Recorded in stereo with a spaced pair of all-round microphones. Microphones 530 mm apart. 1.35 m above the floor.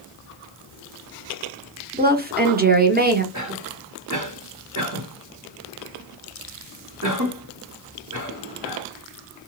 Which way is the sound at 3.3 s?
35° right (ahead or behind).